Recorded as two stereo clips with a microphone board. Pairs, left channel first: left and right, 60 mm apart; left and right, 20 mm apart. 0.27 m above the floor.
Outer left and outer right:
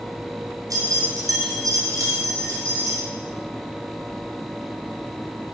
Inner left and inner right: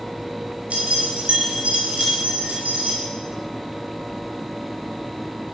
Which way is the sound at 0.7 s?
75° right (ahead or behind).